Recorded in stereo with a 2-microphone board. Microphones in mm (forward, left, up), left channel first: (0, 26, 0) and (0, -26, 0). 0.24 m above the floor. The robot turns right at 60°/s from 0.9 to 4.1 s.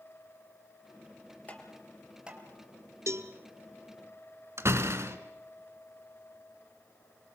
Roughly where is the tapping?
Left.